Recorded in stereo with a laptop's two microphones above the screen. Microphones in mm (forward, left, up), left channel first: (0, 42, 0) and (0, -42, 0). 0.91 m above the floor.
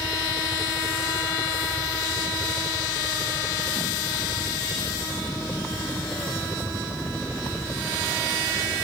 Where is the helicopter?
20° left (ahead or behind); by 8.8 s 5° left (ahead or behind).